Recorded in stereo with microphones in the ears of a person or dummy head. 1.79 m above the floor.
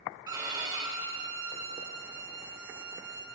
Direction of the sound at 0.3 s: 20° right (ahead or behind).